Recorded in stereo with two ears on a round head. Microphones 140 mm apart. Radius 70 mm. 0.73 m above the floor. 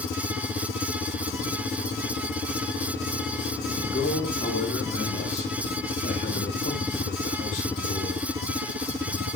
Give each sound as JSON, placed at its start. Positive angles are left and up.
{"t": 3.9, "sound": "a man speaking", "side_deg": 45, "distance_m": 5.5}